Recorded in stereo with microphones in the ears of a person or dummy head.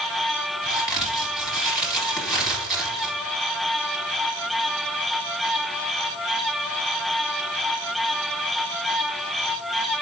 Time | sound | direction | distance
0.6 | a crack | centre (ahead or behind) | 2.5 m